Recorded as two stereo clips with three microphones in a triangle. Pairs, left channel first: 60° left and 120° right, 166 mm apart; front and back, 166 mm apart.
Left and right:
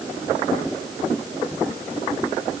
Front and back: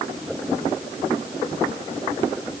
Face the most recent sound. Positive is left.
No sound to turn to.